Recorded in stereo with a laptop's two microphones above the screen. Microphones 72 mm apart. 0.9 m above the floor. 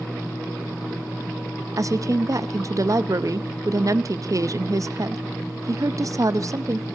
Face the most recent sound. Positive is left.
turn(degrees=-50)  # may be behind; listen again after turning